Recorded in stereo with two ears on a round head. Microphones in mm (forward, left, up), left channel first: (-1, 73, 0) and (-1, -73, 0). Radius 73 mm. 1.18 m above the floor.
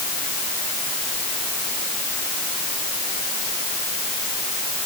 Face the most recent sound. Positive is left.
No sound to turn to.